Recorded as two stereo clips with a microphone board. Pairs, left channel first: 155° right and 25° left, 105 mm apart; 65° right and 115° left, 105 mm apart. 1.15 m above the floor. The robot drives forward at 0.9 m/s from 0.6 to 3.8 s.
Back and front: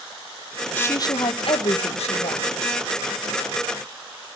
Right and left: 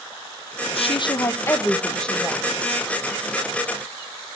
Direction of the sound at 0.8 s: 85° right.